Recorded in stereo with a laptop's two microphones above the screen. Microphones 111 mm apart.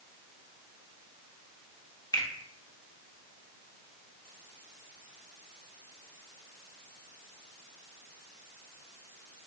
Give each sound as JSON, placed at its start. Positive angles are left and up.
{"t": 2.1, "sound": "a finger snap", "side_deg": 35, "distance_m": 0.8}